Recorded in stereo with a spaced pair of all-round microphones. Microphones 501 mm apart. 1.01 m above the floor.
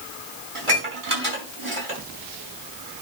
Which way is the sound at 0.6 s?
80° right.